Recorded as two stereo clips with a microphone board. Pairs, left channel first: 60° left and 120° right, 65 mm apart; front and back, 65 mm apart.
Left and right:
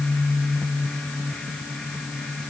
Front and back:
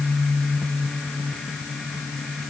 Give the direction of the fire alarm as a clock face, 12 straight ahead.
I don't hear a fire alarm.